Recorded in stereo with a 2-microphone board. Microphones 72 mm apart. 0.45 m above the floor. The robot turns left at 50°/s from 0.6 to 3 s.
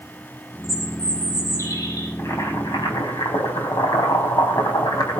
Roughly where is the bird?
Behind.